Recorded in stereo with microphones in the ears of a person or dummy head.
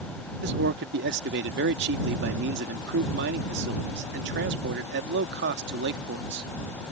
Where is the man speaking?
60° right (ahead or behind).